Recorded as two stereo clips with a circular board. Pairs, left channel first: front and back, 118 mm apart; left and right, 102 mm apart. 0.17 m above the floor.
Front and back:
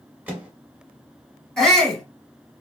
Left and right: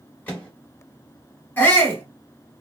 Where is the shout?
80° left, 1.0 m.